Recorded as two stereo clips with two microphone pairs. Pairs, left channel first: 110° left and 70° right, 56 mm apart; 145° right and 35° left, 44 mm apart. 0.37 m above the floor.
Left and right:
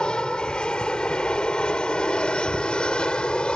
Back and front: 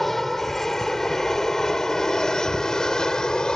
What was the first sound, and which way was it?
An aircraft, 145° left.